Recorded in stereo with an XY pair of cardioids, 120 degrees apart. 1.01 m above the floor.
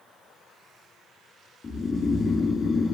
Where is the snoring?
35° left, 1.2 m.